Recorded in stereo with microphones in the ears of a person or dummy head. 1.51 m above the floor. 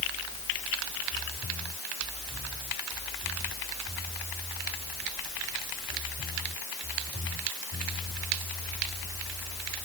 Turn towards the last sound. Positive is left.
No sound to turn to.